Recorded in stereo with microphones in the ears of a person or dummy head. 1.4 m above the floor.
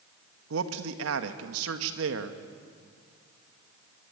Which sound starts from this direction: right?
A man speaking, at 0.5 s.